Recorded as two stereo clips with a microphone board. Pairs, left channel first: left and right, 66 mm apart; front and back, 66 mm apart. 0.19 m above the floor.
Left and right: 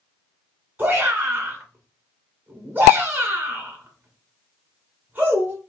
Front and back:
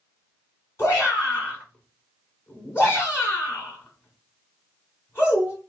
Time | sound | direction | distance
0.8 | a shout | 35° right | 2.5 m